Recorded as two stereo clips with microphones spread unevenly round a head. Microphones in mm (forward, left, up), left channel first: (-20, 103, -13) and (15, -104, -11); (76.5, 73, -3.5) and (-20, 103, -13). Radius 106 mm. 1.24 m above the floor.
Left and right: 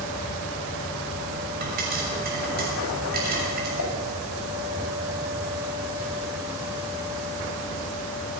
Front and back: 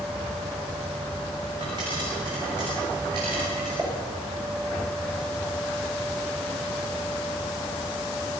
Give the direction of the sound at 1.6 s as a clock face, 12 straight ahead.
4 o'clock.